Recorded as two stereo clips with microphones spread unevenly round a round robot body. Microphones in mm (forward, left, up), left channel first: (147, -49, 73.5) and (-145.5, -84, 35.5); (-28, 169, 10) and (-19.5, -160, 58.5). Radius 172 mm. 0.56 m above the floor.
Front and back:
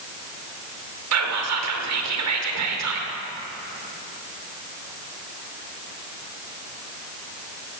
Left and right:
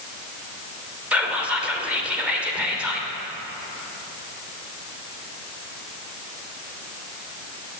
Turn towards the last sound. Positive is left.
turn(degrees=180)